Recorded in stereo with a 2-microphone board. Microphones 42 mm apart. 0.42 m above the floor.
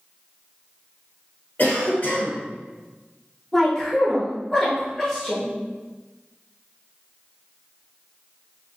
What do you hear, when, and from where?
1.6 s a cough: 40° left (ahead or behind), 1.2 m
3.5 s a woman speaking: 10° left (ahead or behind), 0.9 m